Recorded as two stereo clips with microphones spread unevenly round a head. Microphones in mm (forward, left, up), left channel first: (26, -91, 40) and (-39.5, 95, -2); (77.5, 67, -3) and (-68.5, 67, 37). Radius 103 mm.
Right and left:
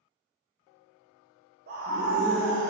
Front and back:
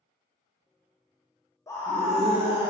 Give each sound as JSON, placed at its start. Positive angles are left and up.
{"t": 1.7, "sound": "a scream", "azimuth_deg": 65, "distance_m": 1.2}